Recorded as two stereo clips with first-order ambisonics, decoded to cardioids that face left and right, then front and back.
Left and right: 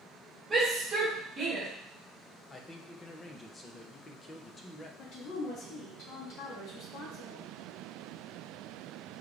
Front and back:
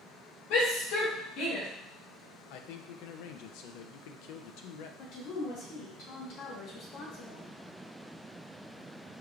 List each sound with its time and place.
0.5 s a shout: 15° right, 1.9 m; by 1.7 s 30° right, 2 m
2.5 s a man speaking: 20° left, 0.5 m
5.0 s a woman speaking: 40° left, 1.4 m